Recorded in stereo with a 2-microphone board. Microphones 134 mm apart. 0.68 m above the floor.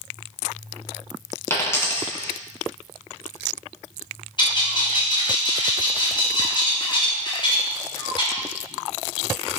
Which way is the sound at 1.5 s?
20° left (ahead or behind).